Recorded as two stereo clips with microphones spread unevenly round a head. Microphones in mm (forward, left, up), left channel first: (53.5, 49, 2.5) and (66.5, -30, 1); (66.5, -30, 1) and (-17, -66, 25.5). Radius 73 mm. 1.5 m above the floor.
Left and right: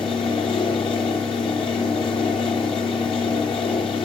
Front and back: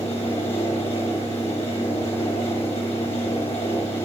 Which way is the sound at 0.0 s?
95° left.